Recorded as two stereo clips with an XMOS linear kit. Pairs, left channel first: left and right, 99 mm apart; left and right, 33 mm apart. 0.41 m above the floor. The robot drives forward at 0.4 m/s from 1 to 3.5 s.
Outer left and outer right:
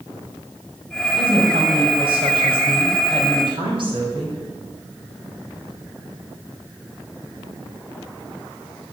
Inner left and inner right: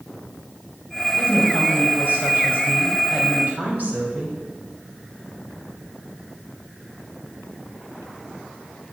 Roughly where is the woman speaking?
Right.